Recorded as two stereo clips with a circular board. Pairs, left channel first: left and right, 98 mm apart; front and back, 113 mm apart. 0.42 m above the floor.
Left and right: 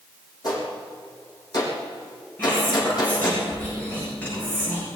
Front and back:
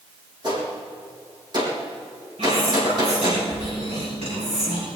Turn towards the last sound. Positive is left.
turn(degrees=160)